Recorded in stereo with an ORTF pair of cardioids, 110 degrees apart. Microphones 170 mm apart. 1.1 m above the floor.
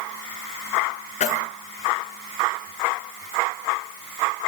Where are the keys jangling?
50° left, 8 m.